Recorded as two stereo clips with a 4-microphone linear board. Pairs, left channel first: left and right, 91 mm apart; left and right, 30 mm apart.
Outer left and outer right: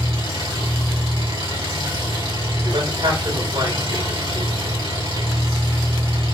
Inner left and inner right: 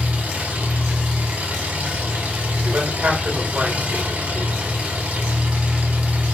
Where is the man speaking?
65° right (ahead or behind), 3 m.